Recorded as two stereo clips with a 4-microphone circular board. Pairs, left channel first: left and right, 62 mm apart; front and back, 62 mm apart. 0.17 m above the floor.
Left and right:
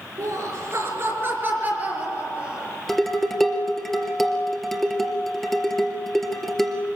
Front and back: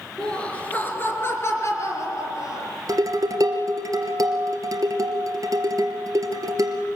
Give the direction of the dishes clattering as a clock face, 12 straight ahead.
6 o'clock.